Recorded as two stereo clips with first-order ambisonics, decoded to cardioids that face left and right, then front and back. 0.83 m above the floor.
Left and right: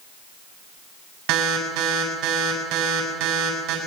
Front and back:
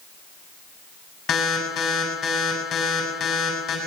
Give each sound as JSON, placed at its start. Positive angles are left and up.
{"t": 1.3, "sound": "an alarm", "azimuth_deg": -55, "distance_m": 8.0}